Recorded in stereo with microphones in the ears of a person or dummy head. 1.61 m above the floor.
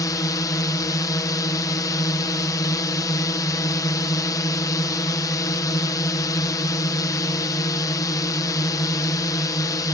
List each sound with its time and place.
0.0 s a drone: 15° left (ahead or behind)